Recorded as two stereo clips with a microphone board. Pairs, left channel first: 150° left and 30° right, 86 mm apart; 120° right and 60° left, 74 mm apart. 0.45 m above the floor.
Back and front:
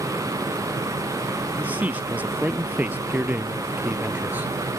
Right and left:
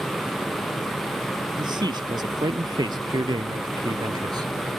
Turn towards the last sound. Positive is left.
turn(degrees=40)